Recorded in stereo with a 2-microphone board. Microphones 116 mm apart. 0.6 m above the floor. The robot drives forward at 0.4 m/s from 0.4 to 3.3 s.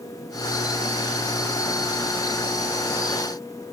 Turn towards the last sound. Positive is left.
No sound to turn to.